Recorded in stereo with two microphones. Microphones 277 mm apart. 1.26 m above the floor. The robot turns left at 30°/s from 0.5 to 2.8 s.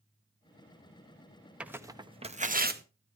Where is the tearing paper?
5° right (ahead or behind), 0.8 m; by 2.8 s 35° right (ahead or behind), 0.8 m.